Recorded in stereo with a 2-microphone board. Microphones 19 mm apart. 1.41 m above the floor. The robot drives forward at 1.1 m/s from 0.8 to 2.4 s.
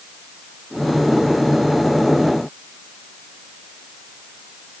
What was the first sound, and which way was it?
Only background noise.